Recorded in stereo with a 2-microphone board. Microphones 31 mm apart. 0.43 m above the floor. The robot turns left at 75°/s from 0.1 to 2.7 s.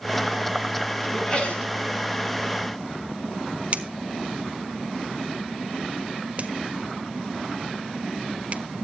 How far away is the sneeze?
About 5 m.